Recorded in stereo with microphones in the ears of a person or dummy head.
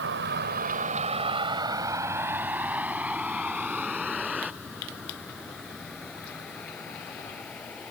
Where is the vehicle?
70° right (ahead or behind); by 7.9 s 20° left (ahead or behind).